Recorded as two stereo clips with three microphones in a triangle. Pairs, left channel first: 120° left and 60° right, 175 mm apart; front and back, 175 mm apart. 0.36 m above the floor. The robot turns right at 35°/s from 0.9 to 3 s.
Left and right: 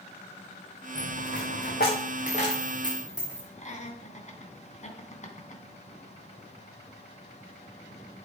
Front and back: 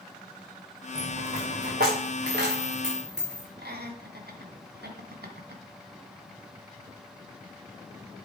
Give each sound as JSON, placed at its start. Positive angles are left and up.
{"t": 0.9, "sound": "a dropped coin", "azimuth_deg": 115, "distance_m": 3.5}
{"t": 3.6, "sound": "laughter", "azimuth_deg": 165, "distance_m": 2.5}